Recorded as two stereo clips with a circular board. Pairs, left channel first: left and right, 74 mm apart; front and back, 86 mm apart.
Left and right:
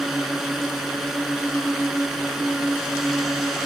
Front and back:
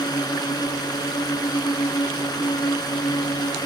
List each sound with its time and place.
0.0 s a drone: 5° right